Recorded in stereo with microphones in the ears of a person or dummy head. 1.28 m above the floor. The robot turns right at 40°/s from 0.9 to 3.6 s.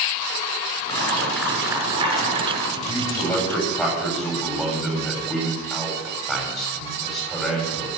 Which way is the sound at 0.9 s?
160° left.